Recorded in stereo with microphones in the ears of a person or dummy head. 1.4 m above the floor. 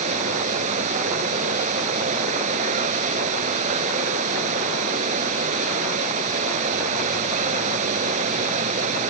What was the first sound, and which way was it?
Running water, 45° right (ahead or behind).